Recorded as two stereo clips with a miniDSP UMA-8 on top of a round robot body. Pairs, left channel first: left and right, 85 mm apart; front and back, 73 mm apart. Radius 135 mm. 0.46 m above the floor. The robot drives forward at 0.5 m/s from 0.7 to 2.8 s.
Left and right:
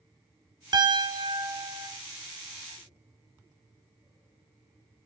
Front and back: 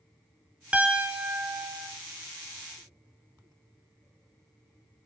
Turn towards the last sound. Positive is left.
turn(degrees=-130)